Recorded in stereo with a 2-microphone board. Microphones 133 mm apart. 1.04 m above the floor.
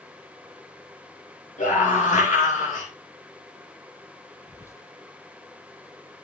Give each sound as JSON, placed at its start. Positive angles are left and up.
{"t": 1.6, "sound": "a scream", "side_deg": 80, "distance_m": 7.5}
{"t": 4.5, "sound": "whispering", "side_deg": 20, "distance_m": 1.3}